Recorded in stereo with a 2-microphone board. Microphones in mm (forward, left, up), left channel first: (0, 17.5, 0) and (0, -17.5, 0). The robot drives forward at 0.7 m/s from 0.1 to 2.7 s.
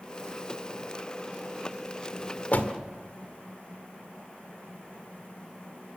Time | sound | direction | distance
2.5 | a door slam | 50° left (ahead or behind) | 1.7 m